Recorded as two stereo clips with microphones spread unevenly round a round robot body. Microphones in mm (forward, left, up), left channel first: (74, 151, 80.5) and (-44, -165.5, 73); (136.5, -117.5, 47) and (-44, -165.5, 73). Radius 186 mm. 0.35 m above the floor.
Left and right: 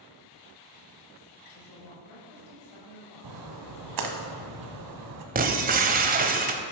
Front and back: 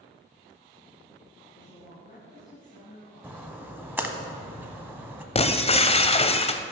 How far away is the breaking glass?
About 0.8 m.